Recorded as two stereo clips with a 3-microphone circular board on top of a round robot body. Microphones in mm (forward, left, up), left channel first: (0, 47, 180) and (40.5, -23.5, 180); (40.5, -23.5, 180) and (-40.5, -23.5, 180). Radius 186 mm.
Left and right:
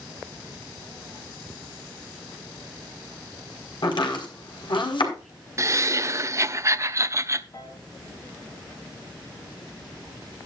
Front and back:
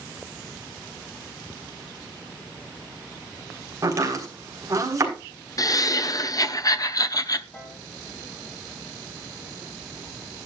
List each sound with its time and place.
3.8 s chopping: 130° left, 4.5 m
5.6 s laughter: 20° right, 1.2 m
7.5 s a piano: 70° left, 3.5 m